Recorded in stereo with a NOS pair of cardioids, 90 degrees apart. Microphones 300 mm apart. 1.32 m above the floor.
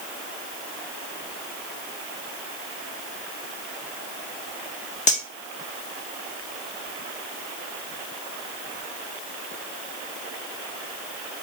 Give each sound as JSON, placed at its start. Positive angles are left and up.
{"t": 5.1, "sound": "cutlery clinking", "azimuth_deg": 25, "distance_m": 1.6}